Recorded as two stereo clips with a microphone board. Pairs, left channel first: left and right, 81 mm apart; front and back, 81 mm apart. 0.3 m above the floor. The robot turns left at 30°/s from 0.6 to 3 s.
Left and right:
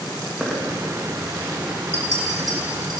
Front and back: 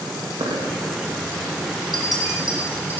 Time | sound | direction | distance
0.4 | a dropped coin | 175° right | 3.5 m
1.9 | a clink | 35° right | 6 m